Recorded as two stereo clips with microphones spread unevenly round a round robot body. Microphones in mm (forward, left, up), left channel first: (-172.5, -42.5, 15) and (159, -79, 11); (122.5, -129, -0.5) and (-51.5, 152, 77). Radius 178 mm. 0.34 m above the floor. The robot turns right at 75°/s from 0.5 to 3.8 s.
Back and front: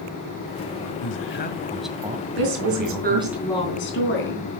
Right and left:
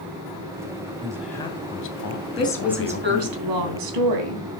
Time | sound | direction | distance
1.0 | a man speaking | 160° right | 2 m
2.4 | a woman speaking | 5° left | 3.5 m